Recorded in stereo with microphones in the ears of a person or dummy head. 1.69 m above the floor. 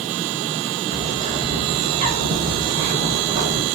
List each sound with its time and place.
0.9 s a bird: 35° right (ahead or behind), 0.5 m